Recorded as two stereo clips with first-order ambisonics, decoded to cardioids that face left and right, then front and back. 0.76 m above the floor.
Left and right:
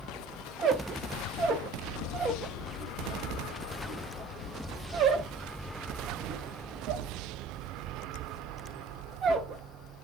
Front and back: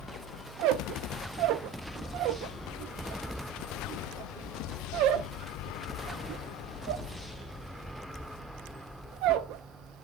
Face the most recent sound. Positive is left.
turn(degrees=-150)